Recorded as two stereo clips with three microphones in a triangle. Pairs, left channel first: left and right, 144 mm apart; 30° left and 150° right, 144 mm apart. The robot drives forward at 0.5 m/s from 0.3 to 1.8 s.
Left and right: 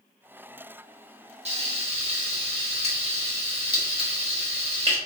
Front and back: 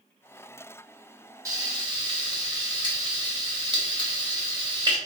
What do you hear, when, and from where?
1.4 s frying: 90° right, 1.1 m; by 5.0 s 105° right, 1.1 m